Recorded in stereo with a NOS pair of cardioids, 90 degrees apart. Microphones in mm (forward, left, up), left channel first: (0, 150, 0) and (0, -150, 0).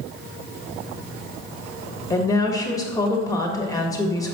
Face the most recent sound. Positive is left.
turn(degrees=10)